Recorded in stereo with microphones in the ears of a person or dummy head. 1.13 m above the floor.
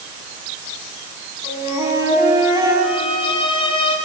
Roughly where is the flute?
Centre.